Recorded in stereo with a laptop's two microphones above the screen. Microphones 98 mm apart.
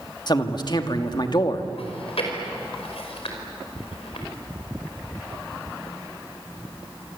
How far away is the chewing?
About 5 m.